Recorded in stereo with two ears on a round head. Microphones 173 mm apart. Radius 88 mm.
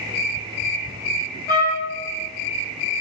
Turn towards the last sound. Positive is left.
turn(degrees=15)  # may be behind; listen again after turning